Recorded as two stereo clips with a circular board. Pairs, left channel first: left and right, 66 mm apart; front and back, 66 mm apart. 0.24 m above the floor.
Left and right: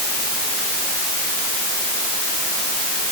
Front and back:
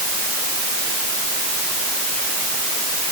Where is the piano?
I don't hear a piano.